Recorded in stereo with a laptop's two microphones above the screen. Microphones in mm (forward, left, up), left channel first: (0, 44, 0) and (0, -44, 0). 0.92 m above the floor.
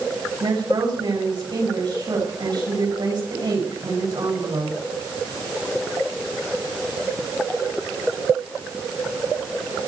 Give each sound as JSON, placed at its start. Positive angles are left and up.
{"t": 0.4, "sound": "a woman speaking", "side_deg": -55, "distance_m": 7.0}